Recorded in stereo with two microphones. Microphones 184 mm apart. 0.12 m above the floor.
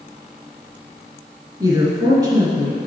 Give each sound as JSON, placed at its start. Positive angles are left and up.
{"t": 1.6, "sound": "a woman speaking", "side_deg": -25, "distance_m": 1.8}